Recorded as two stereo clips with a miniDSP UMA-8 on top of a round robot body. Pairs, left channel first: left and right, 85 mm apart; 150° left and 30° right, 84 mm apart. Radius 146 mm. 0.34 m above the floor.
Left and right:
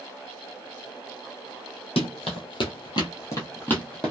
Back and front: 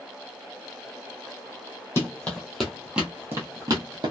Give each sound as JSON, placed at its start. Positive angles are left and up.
{"t": 2.0, "sound": "running footsteps", "azimuth_deg": 85, "distance_m": 0.9}